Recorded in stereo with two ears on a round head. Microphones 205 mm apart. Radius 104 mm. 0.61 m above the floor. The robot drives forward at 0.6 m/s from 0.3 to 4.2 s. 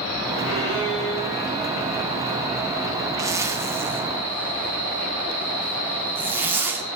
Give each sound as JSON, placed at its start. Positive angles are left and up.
{"t": 0.4, "sound": "a violin", "side_deg": 70, "distance_m": 4.5}
{"t": 3.2, "sound": "a zipper", "side_deg": -15, "distance_m": 0.8}